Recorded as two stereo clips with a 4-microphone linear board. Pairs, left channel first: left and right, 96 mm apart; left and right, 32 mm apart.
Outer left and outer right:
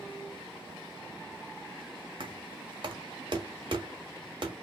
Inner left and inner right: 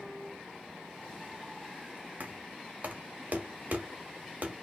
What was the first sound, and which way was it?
Knocking, 55° right (ahead or behind).